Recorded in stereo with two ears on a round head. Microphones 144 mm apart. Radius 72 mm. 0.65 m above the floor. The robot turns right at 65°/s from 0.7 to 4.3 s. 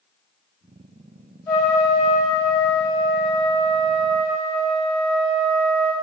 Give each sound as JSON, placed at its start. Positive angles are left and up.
{"t": 1.5, "sound": "a trumpet", "azimuth_deg": 20, "distance_m": 0.8}